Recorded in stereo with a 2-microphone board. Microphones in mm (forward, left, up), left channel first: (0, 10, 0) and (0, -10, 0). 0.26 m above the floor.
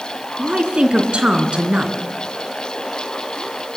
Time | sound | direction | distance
0.4 | a woman speaking | 60° right (ahead or behind) | 3 m